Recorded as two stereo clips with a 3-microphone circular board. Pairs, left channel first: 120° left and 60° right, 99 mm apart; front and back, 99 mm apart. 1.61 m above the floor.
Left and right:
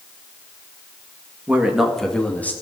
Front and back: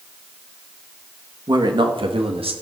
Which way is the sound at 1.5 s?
135° right.